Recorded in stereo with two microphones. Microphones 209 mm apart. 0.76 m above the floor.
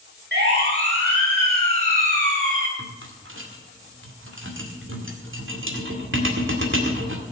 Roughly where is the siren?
Right.